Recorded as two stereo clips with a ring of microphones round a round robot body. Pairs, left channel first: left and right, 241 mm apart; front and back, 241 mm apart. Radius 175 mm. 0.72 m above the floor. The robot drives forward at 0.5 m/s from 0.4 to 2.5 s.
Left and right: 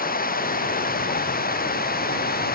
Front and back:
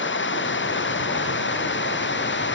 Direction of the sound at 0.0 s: 40° left.